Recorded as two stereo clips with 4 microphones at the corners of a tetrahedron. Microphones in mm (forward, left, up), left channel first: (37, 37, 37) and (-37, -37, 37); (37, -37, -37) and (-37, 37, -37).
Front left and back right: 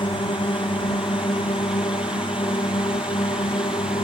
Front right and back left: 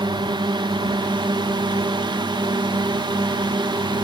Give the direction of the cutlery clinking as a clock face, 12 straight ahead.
No cutlery clinking in this recording.